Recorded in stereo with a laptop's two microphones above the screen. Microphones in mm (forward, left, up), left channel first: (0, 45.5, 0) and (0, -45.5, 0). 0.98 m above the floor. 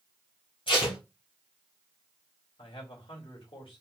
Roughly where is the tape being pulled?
Left.